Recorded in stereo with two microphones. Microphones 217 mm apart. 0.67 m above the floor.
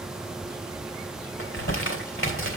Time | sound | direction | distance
1.4 | crumpling | 80° left | 2.5 m